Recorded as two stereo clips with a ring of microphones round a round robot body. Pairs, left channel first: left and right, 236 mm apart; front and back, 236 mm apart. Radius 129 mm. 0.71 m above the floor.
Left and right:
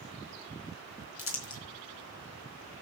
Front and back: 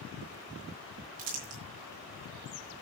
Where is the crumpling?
120° left, 3.5 m.